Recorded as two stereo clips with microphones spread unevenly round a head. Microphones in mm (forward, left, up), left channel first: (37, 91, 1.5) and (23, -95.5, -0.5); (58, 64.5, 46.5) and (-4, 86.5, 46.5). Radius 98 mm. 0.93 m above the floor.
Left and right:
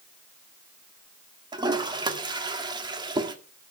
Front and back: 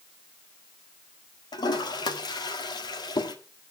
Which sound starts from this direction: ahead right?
A toilet flushing, at 1.5 s.